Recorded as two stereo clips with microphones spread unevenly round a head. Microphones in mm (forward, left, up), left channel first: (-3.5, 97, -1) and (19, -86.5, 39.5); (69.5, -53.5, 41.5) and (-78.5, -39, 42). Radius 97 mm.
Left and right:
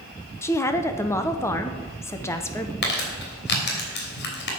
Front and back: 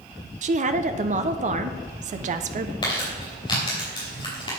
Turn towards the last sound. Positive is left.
turn(degrees=60)